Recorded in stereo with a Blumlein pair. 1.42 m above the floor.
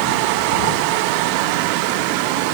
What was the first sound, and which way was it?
Only background noise.